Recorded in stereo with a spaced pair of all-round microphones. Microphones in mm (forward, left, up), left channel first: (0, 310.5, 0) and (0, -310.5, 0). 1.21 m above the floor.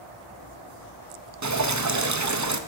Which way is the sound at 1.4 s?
30° right (ahead or behind).